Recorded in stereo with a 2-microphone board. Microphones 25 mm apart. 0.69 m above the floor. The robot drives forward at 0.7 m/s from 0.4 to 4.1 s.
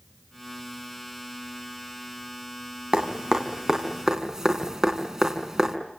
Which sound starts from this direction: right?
Dripping, at 2.9 s.